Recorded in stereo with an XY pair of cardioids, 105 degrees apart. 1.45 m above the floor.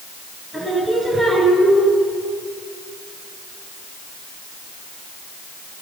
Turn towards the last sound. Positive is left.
turn(degrees=-10)